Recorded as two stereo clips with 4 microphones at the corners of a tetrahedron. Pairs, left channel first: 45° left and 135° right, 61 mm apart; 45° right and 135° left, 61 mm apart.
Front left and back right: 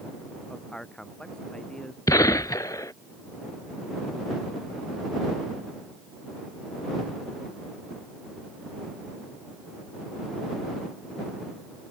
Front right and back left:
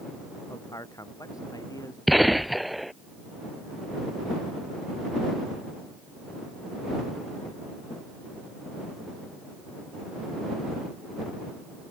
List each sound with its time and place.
0.5 s a man speaking: 35° right; by 2.0 s 30° right
2.1 s a gunshot: 45° left